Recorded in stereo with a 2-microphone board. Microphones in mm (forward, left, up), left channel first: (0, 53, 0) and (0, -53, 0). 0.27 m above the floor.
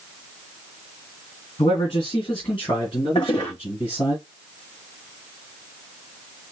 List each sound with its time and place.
1.6 s a man speaking: 55° left (ahead or behind), 2.5 m; by 4.2 s 50° left (ahead or behind), 3.5 m
3.1 s a toilet flushing: 50° left (ahead or behind), 4 m